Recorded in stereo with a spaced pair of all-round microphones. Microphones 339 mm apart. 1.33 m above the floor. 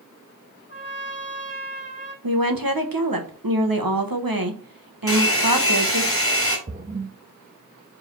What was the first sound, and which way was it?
A trumpet, 35° left (ahead or behind).